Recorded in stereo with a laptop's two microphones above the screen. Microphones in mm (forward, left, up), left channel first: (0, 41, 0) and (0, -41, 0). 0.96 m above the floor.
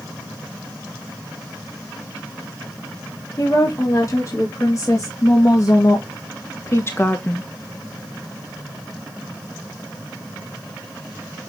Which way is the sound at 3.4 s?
40° left (ahead or behind).